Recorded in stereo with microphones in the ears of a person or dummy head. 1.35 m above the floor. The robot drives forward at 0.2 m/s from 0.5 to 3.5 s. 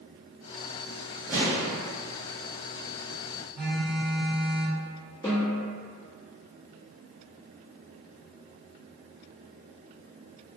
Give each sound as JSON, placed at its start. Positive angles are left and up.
{"t": 1.3, "sound": "an explosion", "side_deg": -15, "distance_m": 0.7}
{"t": 3.5, "sound": "a phone buzzing", "side_deg": 0, "distance_m": 1.1}
{"t": 5.2, "sound": "a snare drum", "side_deg": 15, "distance_m": 0.8}